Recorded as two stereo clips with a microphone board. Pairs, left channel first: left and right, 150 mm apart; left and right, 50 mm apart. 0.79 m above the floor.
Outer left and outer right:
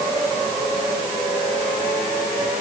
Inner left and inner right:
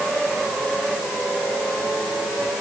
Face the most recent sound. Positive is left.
No sound to turn to.